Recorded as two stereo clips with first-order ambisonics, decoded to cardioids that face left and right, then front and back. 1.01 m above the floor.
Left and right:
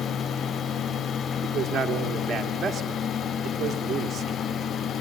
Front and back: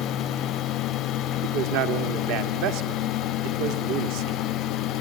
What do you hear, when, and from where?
1.4 s a man speaking: 160° right, 1.7 m